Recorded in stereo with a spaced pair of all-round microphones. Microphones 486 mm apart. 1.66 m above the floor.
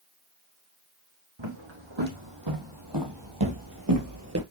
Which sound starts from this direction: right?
Footsteps, at 1.4 s.